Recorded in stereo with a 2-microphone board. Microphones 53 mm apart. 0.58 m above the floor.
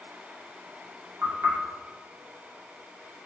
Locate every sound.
1.2 s knocking: 50° right (ahead or behind), 0.9 m